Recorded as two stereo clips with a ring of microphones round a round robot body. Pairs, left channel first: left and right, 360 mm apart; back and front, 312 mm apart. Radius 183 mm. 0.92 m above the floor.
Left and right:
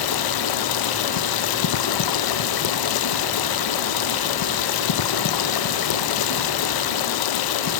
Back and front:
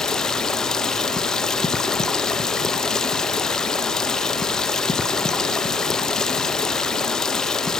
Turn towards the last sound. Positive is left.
turn(degrees=90)